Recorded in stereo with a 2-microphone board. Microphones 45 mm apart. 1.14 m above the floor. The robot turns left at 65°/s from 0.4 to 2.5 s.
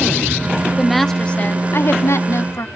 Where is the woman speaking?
170° right, 0.9 m; by 2.7 s 75° left, 0.9 m.